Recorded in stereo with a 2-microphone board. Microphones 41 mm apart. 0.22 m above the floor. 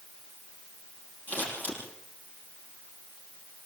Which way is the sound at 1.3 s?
55° left (ahead or behind).